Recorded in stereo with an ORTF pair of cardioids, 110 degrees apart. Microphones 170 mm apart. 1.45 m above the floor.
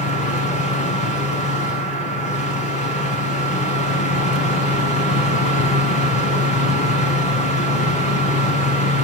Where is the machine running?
45° left, 7 m.